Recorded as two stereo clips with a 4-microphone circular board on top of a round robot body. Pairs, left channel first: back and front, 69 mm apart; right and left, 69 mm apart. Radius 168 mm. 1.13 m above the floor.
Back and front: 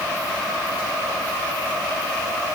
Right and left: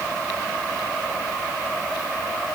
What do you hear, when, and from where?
Only background noise.